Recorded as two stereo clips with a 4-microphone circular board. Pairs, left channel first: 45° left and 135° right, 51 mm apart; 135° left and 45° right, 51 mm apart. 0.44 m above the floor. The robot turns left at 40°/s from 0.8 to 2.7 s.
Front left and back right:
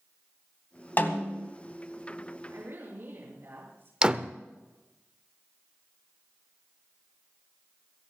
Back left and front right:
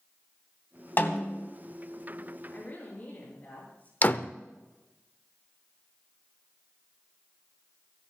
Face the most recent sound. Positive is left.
turn(degrees=165)